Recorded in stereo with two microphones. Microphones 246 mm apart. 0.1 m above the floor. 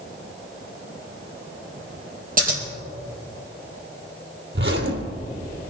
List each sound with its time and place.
2.4 s scissors: 35° right (ahead or behind), 3 m
4.5 s a zipper: 50° right (ahead or behind), 1.4 m